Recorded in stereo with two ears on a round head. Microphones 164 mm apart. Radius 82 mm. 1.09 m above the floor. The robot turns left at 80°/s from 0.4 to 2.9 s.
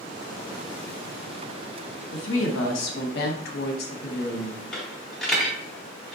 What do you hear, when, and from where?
2.1 s a woman speaking: 120° left, 0.8 m; by 4.6 s 55° left, 0.8 m
4.7 s a dropped coin: 5° left (ahead or behind), 1.0 m